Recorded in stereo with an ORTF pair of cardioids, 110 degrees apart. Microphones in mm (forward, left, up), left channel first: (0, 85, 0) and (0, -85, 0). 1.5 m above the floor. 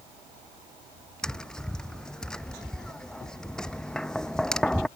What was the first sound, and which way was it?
Tapping, 5° left.